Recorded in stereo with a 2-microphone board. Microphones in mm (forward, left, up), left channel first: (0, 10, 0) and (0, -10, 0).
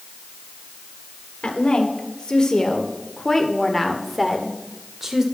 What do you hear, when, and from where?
1.4 s a woman speaking: 45° left (ahead or behind), 2.5 m; by 5.2 s 20° right (ahead or behind), 2 m